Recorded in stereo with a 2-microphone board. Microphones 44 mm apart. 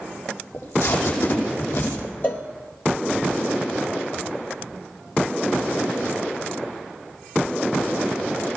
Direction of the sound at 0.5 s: 70° left (ahead or behind).